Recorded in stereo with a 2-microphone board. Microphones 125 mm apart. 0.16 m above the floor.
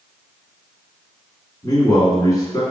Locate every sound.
1.6 s a man speaking: 30° left (ahead or behind), 1.6 m